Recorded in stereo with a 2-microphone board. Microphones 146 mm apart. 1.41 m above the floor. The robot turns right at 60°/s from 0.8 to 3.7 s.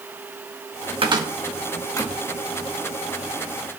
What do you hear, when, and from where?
1.0 s a cupboard door: 35° right (ahead or behind), 1.3 m; by 2.2 s 30° left (ahead or behind), 1.3 m